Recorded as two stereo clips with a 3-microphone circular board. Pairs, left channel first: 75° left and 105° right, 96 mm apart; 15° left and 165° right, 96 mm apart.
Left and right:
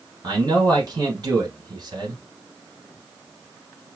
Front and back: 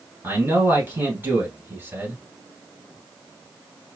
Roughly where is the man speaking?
Right.